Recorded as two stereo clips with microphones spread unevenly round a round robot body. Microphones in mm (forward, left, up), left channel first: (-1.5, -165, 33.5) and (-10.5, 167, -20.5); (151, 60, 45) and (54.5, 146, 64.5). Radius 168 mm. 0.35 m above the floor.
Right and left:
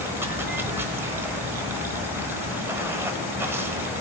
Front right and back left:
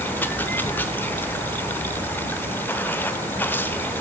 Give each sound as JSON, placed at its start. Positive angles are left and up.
{"t": 0.0, "sound": "running water", "azimuth_deg": 20, "distance_m": 1.0}